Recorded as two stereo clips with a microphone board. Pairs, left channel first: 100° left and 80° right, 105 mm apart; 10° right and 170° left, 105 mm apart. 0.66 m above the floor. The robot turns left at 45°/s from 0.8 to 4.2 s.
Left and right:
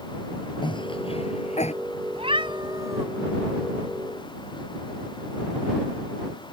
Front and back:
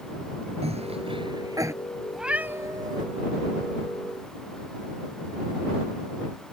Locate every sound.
0.6 s a cough: 145° left; by 1.7 s 105° left
2.1 s a cat meowing: 105° right; by 3.0 s 145° right